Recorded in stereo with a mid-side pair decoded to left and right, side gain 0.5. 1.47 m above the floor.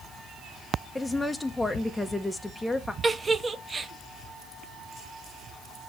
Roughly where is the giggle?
Ahead right.